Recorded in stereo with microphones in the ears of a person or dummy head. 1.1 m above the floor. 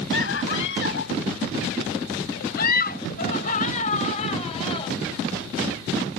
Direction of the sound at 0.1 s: 85° left.